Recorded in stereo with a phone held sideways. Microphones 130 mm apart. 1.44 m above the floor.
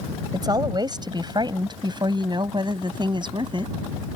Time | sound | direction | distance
0.3 | a woman speaking | 30° right (ahead or behind) | ?